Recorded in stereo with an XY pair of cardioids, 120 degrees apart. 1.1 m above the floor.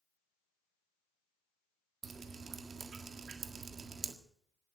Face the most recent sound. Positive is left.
turn(degrees=-35)